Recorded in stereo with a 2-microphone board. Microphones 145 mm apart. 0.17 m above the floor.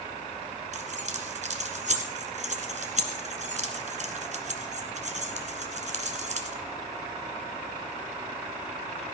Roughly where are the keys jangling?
Right.